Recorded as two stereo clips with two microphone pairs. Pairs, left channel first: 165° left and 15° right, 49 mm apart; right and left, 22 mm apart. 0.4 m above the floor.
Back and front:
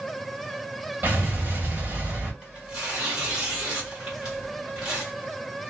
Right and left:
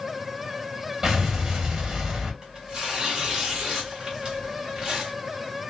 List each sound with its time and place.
1.0 s an explosion: 25° left, 1.5 m
2.4 s tearing paper: 50° left, 1.7 m